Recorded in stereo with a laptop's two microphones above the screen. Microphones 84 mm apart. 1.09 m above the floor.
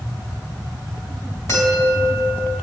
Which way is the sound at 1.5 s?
45° left (ahead or behind).